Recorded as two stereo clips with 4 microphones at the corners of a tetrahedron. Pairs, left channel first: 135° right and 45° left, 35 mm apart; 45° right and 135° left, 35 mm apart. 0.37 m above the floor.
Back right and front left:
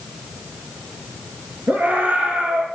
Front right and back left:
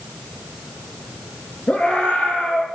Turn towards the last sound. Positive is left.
turn(degrees=20)